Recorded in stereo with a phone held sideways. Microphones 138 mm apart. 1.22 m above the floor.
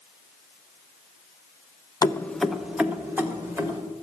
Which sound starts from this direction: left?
Keys jangling, at 2.0 s.